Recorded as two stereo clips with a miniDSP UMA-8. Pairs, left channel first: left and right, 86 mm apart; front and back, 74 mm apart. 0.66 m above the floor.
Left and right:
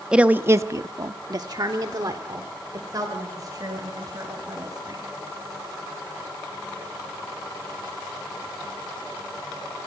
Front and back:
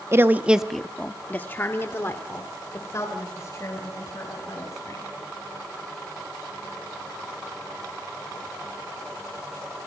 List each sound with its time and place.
0.1 s a woman speaking: 160° right, 0.7 m; by 5.0 s 45° right, 4 m